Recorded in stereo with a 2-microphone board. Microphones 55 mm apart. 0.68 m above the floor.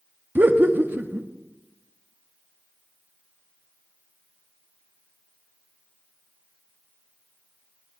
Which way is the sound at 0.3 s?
35° right (ahead or behind).